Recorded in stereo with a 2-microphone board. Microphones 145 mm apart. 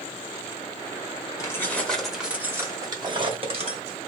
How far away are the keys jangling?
About 1.2 m.